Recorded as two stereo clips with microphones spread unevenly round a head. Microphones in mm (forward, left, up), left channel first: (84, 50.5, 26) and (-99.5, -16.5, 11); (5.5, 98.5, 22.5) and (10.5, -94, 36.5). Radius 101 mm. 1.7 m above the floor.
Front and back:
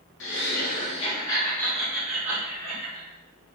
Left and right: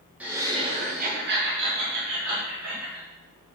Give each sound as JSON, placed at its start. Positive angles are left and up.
{"t": 0.2, "sound": "laughter", "azimuth_deg": -5, "distance_m": 0.8}